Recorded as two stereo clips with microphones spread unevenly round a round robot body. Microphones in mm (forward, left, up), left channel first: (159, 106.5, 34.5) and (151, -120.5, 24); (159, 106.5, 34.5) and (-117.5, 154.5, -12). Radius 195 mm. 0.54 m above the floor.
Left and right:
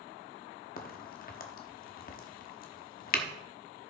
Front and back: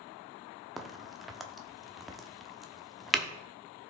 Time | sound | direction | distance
0.8 | a crack | 95° left | 1.0 m